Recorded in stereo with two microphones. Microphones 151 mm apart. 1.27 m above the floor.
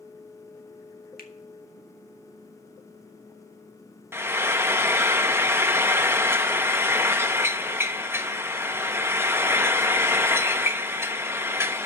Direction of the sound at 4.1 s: 15° right (ahead or behind).